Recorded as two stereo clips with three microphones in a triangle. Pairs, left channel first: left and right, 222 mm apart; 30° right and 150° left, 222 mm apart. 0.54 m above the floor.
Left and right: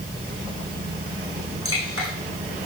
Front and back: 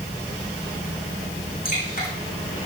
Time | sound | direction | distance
1.6 | dripping | 80° right | 7 m